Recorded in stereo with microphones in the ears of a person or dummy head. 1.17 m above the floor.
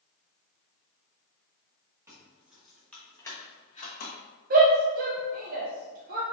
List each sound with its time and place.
2.1 s keys jangling: 10° right (ahead or behind), 1.5 m; by 4.2 s 50° left (ahead or behind), 0.9 m
4.5 s a shout: 45° right (ahead or behind), 0.6 m